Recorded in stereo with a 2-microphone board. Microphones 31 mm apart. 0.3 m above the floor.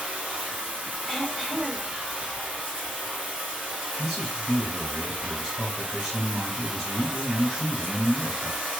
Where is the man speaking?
20° right (ahead or behind), 2 m.